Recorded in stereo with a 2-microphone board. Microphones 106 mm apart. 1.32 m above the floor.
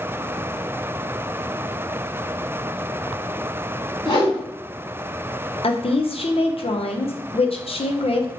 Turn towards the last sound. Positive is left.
turn(degrees=60)  # may be behind; listen again after turning